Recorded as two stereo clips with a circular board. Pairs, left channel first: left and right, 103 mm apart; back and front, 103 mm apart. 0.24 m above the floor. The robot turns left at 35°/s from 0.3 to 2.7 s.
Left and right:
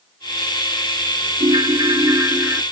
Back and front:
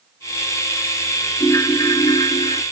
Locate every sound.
1.4 s a ringtone: 120° right; by 2.6 s 160° right